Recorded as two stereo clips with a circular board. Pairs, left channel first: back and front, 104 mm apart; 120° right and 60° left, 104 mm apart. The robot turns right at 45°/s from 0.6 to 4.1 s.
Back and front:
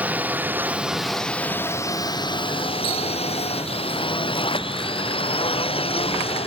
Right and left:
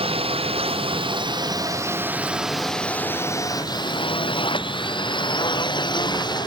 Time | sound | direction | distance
0.0 | a drone | 75° left | ?